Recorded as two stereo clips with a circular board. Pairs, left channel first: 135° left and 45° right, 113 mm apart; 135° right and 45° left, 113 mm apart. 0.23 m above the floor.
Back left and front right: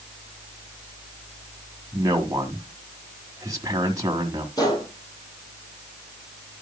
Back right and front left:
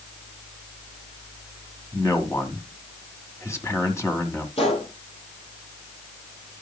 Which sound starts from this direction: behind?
A gunshot, at 4.6 s.